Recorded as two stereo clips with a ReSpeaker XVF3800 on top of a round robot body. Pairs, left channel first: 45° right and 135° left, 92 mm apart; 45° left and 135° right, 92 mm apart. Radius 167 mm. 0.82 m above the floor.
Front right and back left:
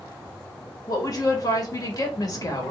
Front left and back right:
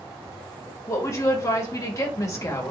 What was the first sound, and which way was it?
A woman speaking, 5° right.